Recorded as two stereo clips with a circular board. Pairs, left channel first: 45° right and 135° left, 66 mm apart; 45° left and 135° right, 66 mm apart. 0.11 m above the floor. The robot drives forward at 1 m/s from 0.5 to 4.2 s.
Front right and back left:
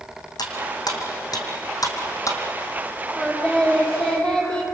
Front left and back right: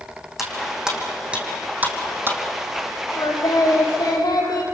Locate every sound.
0.4 s cutlery clinking: 50° right, 3.5 m; by 2.4 s 80° right, 3 m
3.2 s singing: 25° left, 6 m; by 4.6 s 35° left, 5 m